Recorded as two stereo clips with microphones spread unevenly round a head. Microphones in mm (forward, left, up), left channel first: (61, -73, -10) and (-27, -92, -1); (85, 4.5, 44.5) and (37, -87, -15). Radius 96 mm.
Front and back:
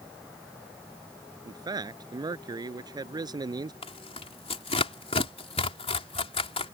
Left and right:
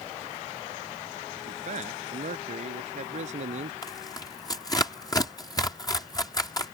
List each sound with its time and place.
1.4 s a man speaking: 125° right
3.8 s tearing paper: 10° left